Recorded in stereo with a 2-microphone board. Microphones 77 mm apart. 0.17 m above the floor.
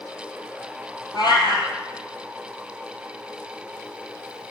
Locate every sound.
1.1 s a cat meowing: 70° left (ahead or behind), 1.9 m